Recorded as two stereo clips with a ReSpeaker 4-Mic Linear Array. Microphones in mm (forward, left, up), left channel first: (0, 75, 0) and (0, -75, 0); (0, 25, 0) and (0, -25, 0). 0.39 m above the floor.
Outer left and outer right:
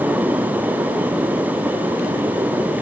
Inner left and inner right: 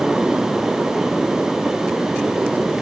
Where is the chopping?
I don't hear chopping.